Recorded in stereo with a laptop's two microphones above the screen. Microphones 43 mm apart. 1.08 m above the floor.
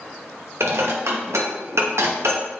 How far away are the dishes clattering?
About 0.8 m.